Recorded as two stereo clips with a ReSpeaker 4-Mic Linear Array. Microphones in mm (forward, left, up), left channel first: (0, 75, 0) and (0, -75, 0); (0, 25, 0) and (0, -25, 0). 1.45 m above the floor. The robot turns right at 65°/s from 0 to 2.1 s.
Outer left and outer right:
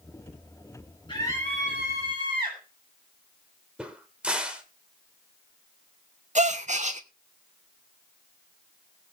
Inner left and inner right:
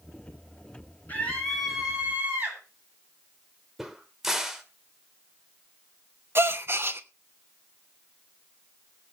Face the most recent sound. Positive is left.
turn(degrees=-55)  # may be behind; listen again after turning